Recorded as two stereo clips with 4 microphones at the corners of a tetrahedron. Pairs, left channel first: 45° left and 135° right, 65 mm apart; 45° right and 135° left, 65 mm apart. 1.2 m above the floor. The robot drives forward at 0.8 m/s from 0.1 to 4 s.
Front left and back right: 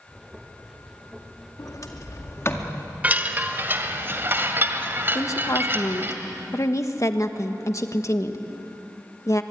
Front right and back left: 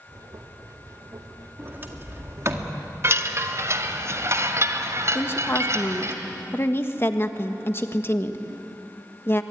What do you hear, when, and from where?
1.6 s a sliding door: 75° left, 2 m; by 2.8 s 100° left, 2 m
3.0 s a chime: 170° left, 1.2 m; by 6.2 s 175° left, 1.9 m
5.2 s a woman speaking: 5° left, 1.6 m